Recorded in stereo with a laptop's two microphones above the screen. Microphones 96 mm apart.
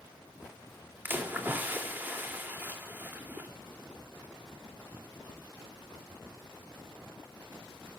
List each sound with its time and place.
1.1 s a splash: 20° right (ahead or behind), 2.5 m